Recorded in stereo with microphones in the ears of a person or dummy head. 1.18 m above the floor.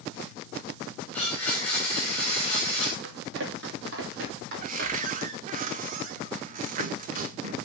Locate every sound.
1.1 s a blender: 15° left (ahead or behind), 4.5 m
3.0 s running footsteps: 60° right (ahead or behind), 2.5 m; by 5.2 s 45° right (ahead or behind), 3 m
4.6 s a cupboard door: 40° right (ahead or behind), 0.6 m